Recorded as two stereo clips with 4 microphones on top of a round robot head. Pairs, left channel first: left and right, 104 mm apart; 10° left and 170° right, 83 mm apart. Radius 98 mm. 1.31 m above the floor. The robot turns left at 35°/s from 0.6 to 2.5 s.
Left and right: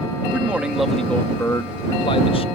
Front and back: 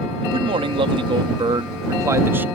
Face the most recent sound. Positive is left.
turn(degrees=120)